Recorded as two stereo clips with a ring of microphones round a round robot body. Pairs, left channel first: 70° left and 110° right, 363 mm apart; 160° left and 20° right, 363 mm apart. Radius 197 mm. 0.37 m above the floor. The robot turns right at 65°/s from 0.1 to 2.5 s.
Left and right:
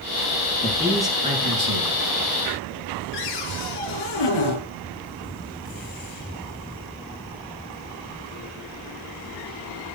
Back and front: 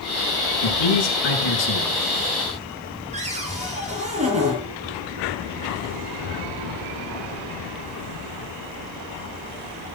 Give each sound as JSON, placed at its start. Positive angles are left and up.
{"t": 0.6, "sound": "a man speaking", "azimuth_deg": 130, "distance_m": 5.5}
{"t": 3.1, "sound": "a cupboard door", "azimuth_deg": 50, "distance_m": 6.0}